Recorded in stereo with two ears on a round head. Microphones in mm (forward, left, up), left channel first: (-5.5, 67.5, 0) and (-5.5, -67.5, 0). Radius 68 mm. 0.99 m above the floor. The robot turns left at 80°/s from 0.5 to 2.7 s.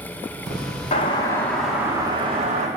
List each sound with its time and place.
0.9 s a doorbell: 60° left, 1.6 m; by 2.7 s 85° right, 1.6 m